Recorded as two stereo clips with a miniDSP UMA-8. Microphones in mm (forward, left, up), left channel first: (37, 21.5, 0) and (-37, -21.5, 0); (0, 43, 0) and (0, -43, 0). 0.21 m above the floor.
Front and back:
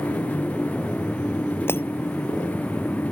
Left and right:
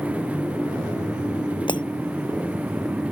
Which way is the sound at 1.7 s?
90° left.